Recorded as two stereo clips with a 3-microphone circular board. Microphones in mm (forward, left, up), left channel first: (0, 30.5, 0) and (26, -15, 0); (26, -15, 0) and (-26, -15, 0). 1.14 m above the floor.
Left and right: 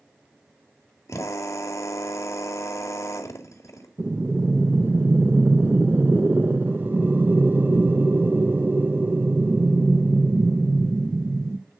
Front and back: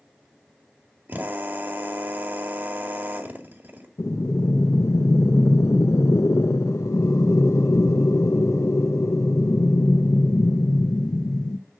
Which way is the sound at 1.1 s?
130° left.